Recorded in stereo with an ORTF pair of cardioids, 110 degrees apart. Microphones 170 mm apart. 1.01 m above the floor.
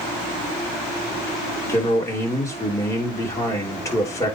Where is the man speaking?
20° left, 3 m.